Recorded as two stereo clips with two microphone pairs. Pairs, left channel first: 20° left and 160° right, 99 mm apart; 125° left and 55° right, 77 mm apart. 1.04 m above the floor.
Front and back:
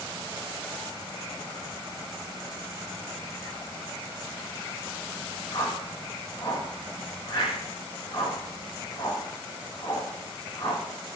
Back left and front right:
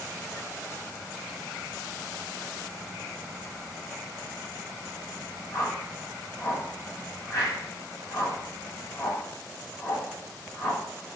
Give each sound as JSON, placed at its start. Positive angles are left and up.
{"t": 5.5, "sound": "a whoosh", "azimuth_deg": 75, "distance_m": 5.5}